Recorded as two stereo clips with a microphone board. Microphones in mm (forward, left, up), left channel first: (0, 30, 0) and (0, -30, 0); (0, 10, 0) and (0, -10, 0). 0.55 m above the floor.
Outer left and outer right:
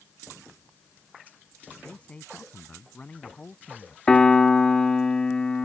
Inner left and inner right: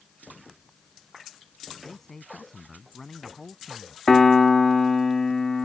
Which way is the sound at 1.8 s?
20° left (ahead or behind).